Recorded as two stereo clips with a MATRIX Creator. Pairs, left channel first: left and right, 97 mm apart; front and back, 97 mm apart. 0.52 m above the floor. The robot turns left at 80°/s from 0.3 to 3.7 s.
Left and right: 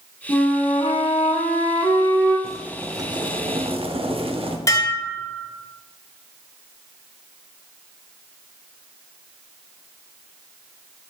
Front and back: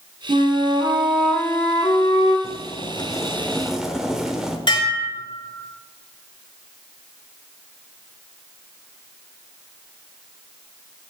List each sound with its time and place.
0.3 s a flute: 170° left, 1.8 m; by 2.3 s 5° left, 1.8 m
2.4 s boiling: 5° left, 0.9 m; by 4.6 s 95° right, 0.9 m
4.7 s dishes clattering: 40° left, 1.3 m